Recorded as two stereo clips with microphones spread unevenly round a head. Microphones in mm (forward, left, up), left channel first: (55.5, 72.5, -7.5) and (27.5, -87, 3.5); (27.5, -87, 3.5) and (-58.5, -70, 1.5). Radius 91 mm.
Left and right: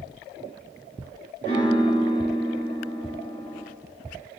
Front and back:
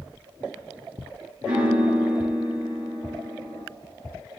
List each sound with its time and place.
1.4 s a piano: 125° left, 4.5 m